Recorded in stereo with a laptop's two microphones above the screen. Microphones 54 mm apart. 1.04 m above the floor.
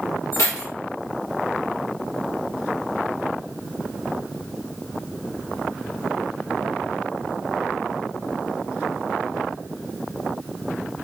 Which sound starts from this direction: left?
Keys jangling, at 0.3 s.